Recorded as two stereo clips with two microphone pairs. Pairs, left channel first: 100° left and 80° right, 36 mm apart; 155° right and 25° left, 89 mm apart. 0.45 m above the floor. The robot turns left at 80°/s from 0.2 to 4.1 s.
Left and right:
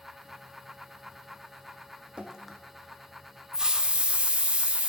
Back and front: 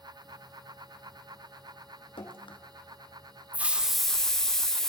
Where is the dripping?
145° right, 1.0 m; by 2.6 s straight behind, 1.0 m.